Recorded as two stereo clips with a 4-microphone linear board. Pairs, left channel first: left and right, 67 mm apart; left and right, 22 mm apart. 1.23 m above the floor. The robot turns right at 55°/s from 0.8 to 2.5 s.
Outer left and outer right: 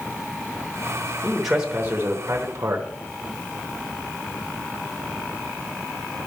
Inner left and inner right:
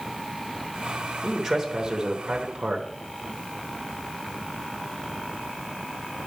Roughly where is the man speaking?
Behind.